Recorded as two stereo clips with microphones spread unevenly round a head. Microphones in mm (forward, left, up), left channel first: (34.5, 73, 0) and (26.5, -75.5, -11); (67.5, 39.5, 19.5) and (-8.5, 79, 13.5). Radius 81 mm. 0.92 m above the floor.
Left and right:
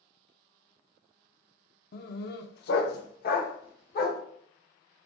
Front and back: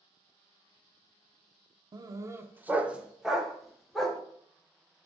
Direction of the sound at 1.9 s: 110° left.